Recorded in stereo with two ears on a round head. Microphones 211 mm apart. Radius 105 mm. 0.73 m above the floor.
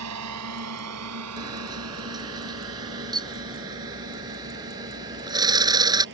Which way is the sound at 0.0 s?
80° right.